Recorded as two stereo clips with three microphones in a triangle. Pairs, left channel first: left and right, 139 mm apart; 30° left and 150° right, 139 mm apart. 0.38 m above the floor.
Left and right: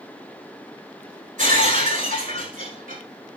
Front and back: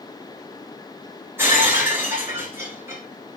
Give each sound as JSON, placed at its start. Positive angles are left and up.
{"t": 1.4, "sound": "breaking glass", "azimuth_deg": -75, "distance_m": 9.5}